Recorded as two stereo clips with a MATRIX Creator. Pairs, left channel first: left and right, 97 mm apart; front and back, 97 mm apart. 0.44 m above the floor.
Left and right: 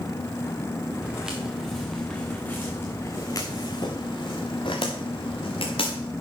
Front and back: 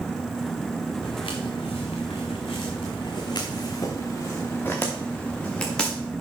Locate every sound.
1.0 s footsteps: 10° right, 3 m; by 6.0 s 85° left, 3.5 m